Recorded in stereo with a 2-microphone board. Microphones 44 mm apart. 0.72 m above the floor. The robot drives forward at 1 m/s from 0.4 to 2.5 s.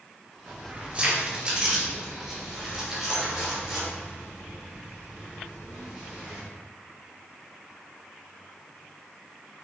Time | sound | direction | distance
0.5 | keys jangling | 40° right (ahead or behind) | 1.0 m